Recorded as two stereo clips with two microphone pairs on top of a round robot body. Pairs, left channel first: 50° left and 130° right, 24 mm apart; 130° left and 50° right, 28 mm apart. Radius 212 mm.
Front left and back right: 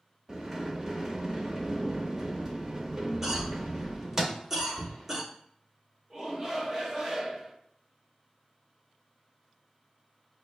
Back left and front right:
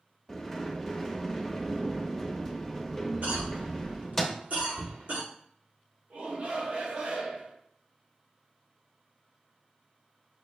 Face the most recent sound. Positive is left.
turn(degrees=-65)